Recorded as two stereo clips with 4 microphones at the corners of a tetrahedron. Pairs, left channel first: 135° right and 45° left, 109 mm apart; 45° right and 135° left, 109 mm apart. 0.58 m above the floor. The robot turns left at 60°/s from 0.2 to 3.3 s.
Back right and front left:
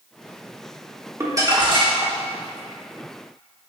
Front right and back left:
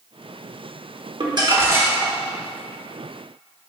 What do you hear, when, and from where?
1.2 s crumpling: 105° left, 1.1 m; by 2.2 s 50° left, 1.1 m